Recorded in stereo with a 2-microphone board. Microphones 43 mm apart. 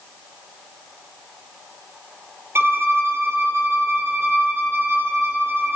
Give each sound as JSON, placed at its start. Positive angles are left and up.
{"t": 2.5, "sound": "a violin", "side_deg": -65, "distance_m": 1.5}